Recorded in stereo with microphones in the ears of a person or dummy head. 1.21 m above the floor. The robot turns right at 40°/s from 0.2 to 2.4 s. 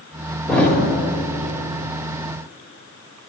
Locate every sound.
0.5 s a thud: 5° left (ahead or behind), 2 m; by 0.8 s 15° left (ahead or behind), 2 m